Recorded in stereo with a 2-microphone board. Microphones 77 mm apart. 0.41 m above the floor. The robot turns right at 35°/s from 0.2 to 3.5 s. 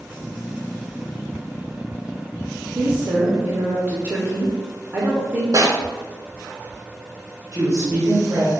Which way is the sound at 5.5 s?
55° right (ahead or behind).